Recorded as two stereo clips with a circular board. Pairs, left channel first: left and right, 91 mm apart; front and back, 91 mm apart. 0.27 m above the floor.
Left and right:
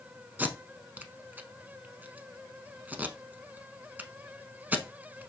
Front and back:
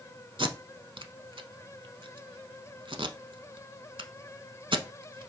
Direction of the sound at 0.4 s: 160° right.